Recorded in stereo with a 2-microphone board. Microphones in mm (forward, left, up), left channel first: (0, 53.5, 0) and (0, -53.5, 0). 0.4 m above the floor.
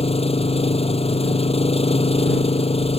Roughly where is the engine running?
Left.